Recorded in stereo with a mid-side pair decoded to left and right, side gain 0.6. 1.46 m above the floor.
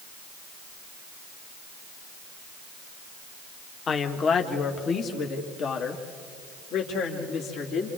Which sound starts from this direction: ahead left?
A woman speaking, at 3.9 s.